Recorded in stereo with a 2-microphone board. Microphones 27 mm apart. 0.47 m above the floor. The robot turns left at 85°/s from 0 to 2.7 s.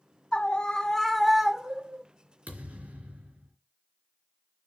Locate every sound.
0.3 s a scream: 75° left, 1.2 m; by 2.0 s 70° right, 1.2 m
2.5 s a thud: 85° right, 3.5 m; by 3.5 s 65° right (ahead or behind), 3.5 m